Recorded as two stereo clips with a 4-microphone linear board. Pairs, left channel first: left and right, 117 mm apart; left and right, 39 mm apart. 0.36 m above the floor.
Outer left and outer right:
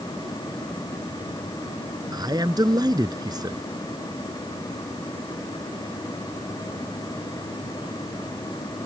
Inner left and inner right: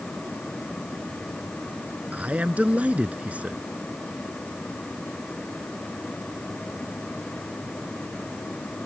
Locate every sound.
2.1 s a man speaking: 35° right (ahead or behind)